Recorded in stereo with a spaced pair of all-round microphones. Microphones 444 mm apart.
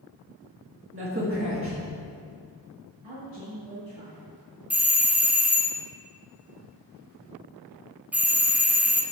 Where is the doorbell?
5° right (ahead or behind), 0.5 m.